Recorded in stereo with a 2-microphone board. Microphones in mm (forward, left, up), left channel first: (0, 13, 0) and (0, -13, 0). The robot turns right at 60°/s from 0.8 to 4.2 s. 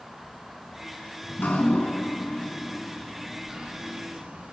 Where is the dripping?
70° left (ahead or behind), 3 m; by 4.5 s 70° right (ahead or behind), 3 m.